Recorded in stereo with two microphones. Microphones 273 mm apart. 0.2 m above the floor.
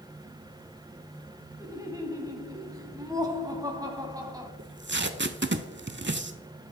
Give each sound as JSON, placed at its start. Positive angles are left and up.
{"t": 1.6, "sound": "laughter", "side_deg": -15, "distance_m": 1.1}
{"t": 4.6, "sound": "tape being pulled", "side_deg": -45, "distance_m": 0.5}